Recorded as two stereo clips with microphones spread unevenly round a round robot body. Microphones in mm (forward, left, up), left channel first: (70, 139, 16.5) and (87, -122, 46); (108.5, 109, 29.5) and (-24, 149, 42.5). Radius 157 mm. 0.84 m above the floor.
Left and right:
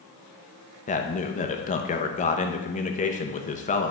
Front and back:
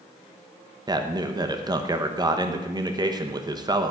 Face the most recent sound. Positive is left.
turn(degrees=115)